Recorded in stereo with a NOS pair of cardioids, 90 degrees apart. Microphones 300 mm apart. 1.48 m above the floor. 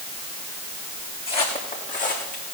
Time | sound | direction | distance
1.3 | footsteps | 20° left | 5 m